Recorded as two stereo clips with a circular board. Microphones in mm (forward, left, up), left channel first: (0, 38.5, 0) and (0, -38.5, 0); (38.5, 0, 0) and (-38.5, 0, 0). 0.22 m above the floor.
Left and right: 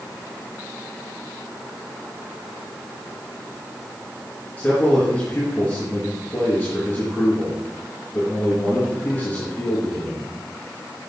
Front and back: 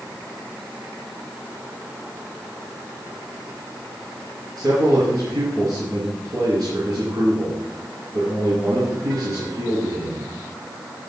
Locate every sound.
4.6 s a man speaking: 160° left, 3.5 m